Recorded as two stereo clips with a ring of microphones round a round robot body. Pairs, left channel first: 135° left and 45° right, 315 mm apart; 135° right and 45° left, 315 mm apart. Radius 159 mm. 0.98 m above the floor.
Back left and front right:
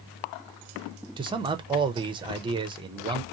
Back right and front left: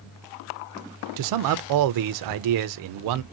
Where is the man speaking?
30° left, 0.5 m.